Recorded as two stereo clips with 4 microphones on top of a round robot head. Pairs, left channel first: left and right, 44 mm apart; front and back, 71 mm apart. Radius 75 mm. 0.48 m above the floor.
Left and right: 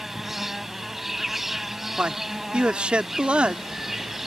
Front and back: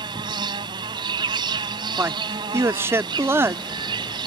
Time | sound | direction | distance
0.0 | an insect | 175° right | ?
2.0 | a man speaking | 145° right | ?